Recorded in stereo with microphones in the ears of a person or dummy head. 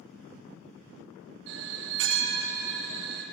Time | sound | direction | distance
1.5 | a bell | 65° right (ahead or behind) | 1.5 m